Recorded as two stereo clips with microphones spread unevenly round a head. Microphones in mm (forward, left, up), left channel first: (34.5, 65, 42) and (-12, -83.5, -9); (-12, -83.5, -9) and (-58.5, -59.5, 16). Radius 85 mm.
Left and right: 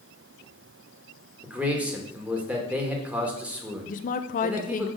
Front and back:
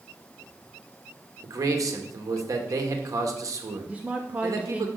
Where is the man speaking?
175° left, 1.7 m.